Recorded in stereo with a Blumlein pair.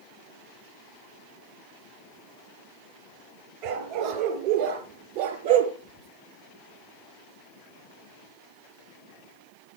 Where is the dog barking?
40° right, 4 m; by 5.7 s 55° right, 3.5 m.